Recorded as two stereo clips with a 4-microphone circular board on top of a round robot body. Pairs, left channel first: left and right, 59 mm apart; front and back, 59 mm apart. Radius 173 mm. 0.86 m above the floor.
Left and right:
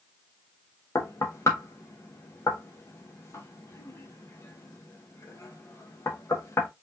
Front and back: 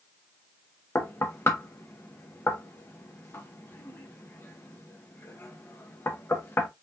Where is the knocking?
50° left, 1.6 m.